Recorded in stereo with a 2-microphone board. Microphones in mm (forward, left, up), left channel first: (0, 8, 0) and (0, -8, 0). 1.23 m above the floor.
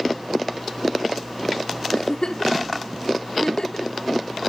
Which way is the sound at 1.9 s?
60° left (ahead or behind).